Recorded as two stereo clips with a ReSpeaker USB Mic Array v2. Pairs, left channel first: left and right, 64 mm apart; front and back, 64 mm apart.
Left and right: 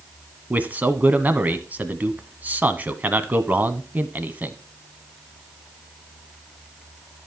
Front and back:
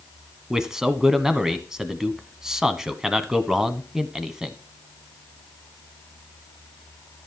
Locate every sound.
0.5 s a man speaking: 110° right, 1.1 m